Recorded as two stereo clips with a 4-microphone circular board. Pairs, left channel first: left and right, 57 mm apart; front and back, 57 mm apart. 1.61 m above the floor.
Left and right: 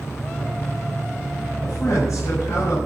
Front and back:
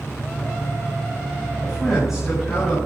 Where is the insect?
70° left, 7.5 m.